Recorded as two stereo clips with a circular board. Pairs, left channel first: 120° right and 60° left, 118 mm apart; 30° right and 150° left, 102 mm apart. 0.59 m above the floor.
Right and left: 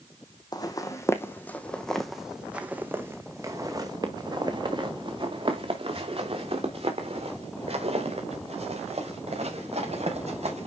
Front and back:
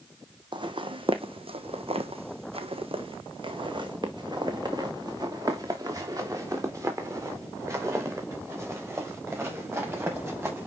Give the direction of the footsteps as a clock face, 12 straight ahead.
6 o'clock.